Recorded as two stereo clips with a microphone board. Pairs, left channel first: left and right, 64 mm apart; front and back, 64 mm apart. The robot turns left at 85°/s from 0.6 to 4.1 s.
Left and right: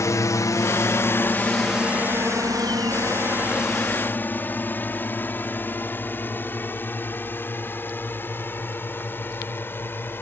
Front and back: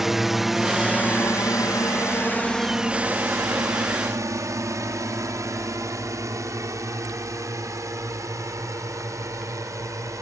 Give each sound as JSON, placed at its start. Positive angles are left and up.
{"t": 0.0, "sound": "a drone", "azimuth_deg": 95}